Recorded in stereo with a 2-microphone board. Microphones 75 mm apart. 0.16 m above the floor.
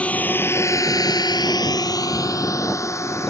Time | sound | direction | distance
0.0 | a drone | 20° left (ahead or behind) | ?